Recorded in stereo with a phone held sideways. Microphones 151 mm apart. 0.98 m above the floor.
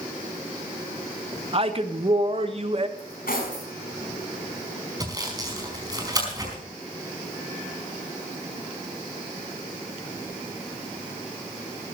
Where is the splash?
No splash in this recording.